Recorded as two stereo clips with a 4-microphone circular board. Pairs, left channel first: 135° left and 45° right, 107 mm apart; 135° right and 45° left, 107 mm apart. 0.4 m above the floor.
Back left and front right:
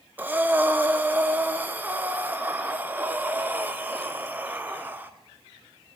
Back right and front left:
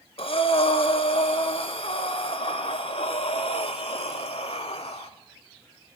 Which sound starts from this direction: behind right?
Breathing, at 0.2 s.